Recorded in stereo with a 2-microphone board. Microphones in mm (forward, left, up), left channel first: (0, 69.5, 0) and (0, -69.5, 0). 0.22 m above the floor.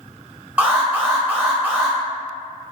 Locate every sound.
0.6 s an alarm: 15° right (ahead or behind), 1.1 m